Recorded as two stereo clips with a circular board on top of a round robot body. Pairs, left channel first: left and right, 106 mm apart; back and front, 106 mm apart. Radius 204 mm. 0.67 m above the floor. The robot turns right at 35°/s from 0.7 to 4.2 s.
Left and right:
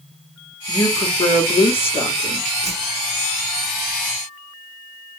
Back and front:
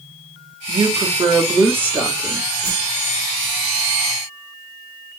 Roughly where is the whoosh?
Left.